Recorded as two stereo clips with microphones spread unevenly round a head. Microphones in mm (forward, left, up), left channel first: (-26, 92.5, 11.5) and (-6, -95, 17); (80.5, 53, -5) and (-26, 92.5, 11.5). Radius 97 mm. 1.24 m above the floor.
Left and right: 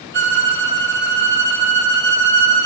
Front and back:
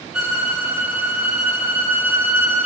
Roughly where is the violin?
Behind right.